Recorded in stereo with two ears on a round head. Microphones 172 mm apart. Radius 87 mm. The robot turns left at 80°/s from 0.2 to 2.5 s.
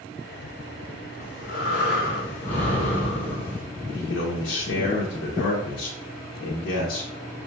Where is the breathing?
115° left, 1.5 m; by 3.6 s 10° left, 1.5 m.